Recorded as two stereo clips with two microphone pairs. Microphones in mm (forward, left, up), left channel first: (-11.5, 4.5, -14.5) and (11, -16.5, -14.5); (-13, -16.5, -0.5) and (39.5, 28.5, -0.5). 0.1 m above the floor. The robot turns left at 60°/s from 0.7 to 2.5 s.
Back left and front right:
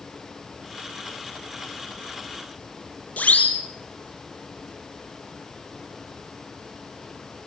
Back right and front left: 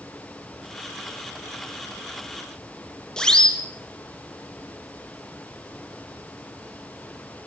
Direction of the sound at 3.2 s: 145° left.